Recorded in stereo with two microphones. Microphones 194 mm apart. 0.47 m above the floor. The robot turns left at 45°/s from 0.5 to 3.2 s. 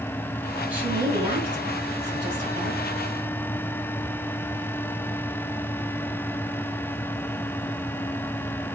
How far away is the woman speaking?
About 3 m.